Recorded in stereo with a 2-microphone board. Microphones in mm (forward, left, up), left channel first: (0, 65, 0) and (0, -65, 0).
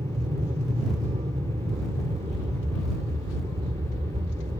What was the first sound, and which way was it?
An aircraft, 55° right (ahead or behind).